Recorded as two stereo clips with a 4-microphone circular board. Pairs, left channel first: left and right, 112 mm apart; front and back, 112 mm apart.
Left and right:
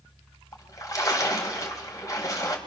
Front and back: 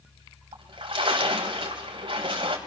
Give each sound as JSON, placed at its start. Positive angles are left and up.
{"t": 0.5, "sound": "a splash", "azimuth_deg": 145, "distance_m": 3.0}